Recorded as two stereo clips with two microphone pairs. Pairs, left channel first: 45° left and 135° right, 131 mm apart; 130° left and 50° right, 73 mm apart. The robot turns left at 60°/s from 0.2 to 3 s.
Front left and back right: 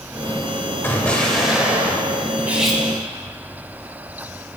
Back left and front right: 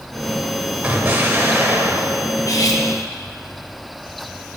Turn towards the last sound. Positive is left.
turn(degrees=120)